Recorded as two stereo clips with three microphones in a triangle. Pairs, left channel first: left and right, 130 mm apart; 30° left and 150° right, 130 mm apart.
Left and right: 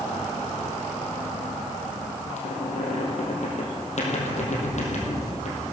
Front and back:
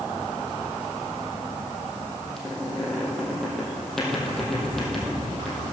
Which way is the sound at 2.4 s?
115° left.